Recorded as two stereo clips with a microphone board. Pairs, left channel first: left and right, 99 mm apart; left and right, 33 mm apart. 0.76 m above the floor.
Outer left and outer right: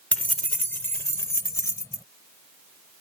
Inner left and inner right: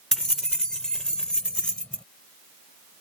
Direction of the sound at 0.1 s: 15° left (ahead or behind).